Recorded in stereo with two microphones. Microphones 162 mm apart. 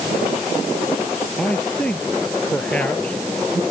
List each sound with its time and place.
1.4 s a man speaking: 5° left (ahead or behind); by 3.6 s 10° left (ahead or behind)